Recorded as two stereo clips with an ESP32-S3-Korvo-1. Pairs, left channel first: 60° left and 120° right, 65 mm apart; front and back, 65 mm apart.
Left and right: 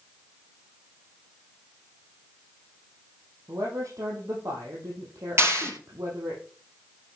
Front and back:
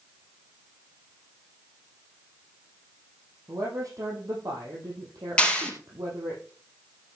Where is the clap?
75° right, 3 m.